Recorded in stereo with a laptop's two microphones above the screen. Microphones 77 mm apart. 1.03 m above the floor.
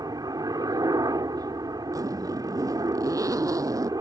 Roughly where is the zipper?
Right.